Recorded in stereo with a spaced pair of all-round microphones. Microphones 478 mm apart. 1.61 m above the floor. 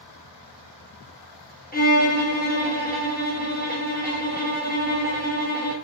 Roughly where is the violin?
Centre.